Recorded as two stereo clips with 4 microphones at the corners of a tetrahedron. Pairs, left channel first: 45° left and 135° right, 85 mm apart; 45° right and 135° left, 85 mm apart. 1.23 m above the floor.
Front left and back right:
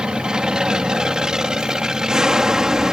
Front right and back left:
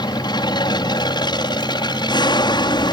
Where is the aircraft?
55° right; by 2.9 s 50° right.